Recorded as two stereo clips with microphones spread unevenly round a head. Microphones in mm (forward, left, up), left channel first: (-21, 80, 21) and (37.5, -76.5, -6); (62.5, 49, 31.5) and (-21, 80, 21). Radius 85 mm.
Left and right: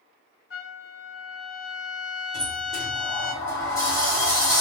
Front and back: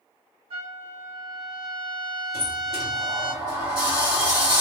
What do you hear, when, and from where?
0.5 s a trumpet: 140° left, 1.0 m
2.3 s a sliding door: 170° right, 1.4 m